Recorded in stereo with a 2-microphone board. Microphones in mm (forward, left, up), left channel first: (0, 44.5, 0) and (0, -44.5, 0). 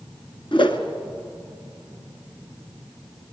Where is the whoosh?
70° left (ahead or behind), 1.7 m.